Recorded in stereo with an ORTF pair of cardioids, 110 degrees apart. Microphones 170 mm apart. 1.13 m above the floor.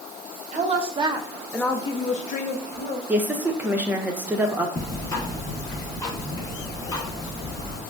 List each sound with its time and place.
0.5 s a woman speaking: 45° right, 0.8 m; by 3.0 s 75° left, 0.9 m
3.1 s a woman speaking: 10° right, 0.7 m
4.8 s ticking: 20° left, 0.9 m